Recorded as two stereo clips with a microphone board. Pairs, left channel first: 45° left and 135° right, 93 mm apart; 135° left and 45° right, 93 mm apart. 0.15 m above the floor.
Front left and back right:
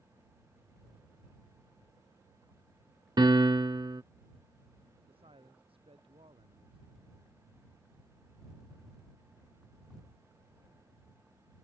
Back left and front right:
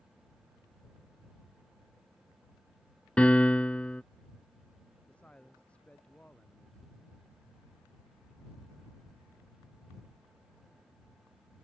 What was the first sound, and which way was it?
A piano, 150° right.